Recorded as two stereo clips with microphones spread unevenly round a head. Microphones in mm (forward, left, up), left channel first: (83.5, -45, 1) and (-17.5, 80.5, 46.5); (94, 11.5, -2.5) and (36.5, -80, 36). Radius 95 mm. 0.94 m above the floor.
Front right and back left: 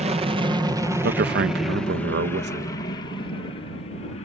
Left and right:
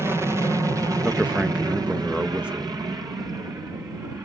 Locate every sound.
0.0 s an aircraft: 150° left; by 4.3 s 60° right
1.0 s a man speaking: 140° left